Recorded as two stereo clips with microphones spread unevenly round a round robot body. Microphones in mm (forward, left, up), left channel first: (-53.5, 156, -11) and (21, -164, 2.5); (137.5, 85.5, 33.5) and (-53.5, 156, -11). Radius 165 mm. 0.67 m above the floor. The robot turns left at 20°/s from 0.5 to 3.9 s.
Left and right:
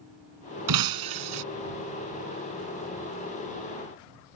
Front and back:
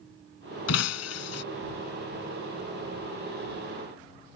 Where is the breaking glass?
40° right; by 1.4 s 55° right.